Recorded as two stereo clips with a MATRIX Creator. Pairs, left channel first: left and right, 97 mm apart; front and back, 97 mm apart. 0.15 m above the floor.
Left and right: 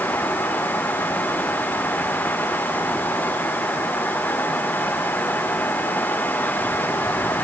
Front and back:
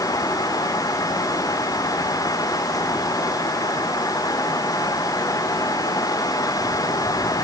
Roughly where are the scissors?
I don't hear scissors.